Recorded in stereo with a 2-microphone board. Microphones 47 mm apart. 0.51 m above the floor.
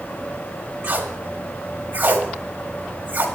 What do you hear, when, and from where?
0.8 s tape being pulled: 35° right (ahead or behind), 1.5 m